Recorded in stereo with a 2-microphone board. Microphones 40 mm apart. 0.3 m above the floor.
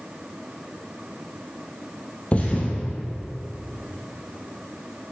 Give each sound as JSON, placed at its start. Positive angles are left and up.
{"t": 2.3, "sound": "a thud", "side_deg": 35, "distance_m": 2.5}